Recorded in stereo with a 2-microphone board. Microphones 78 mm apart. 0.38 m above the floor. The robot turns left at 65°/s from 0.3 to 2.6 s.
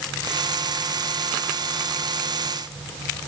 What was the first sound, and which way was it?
Only background noise.